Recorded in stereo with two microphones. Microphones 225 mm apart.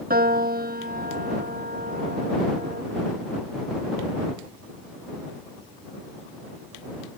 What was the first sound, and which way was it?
A piano, 40° right (ahead or behind).